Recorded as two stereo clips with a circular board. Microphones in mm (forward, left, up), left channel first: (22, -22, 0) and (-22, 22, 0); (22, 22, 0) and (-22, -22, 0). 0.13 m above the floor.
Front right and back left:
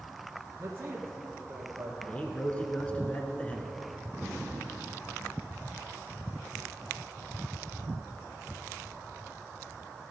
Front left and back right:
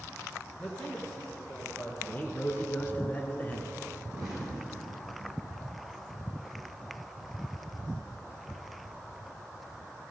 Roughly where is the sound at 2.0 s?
Ahead.